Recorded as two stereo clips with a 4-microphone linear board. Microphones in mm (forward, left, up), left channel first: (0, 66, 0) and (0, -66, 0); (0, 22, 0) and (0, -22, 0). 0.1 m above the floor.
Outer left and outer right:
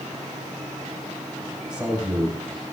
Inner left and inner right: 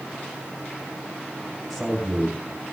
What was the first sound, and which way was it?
A man speaking, 10° right (ahead or behind).